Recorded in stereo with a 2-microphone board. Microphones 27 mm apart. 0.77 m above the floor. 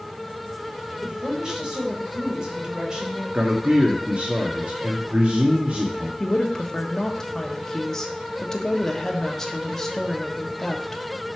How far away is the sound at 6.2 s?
About 1.3 m.